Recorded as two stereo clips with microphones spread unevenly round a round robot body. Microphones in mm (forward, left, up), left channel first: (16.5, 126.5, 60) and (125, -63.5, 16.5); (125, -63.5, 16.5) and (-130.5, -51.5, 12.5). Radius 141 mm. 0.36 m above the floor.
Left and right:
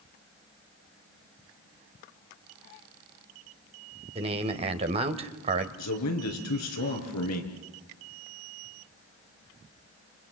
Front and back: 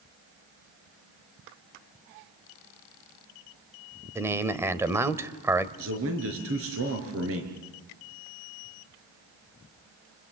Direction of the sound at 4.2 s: 105° right.